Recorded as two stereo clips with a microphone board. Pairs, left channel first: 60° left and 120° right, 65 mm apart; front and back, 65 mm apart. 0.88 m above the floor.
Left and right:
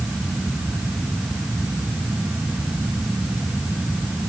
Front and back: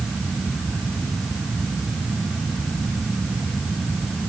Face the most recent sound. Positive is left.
No sound to turn to.